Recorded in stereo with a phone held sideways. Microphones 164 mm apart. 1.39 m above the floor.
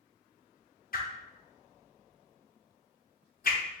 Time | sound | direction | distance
0.9 | a whoosh | 65° left (ahead or behind) | 0.6 m